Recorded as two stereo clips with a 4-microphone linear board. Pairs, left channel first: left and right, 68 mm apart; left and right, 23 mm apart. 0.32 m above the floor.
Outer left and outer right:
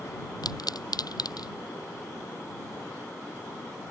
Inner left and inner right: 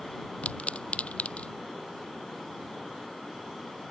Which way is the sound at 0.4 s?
85° left.